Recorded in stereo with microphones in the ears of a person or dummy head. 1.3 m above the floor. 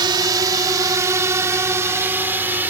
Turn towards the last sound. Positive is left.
turn(degrees=-10)  # may be behind; listen again after turning